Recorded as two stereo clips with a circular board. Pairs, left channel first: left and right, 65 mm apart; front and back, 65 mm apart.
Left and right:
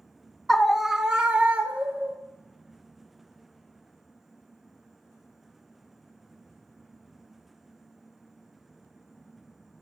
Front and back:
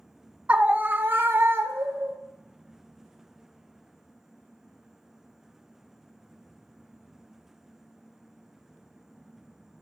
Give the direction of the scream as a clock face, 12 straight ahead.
7 o'clock.